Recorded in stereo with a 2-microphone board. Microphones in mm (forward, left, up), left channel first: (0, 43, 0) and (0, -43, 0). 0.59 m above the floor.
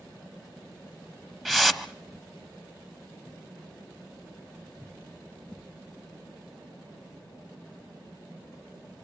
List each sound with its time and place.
1.4 s a whoosh: 5° left (ahead or behind), 0.7 m